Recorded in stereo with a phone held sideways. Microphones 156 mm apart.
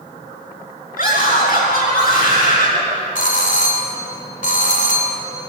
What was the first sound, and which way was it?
A scream, 65° left (ahead or behind).